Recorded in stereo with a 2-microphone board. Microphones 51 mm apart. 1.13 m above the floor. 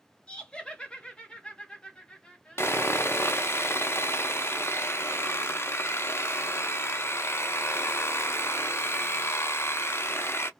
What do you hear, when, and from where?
0.3 s laughter: 20° left (ahead or behind), 0.7 m
2.6 s sawing: 55° left (ahead or behind), 0.5 m